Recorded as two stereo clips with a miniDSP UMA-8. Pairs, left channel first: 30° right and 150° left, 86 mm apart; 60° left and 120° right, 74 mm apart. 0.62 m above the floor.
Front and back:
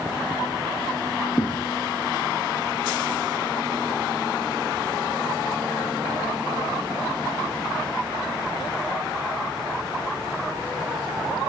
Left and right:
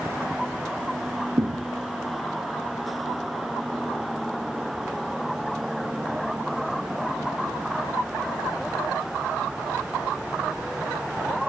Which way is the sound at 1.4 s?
85° right.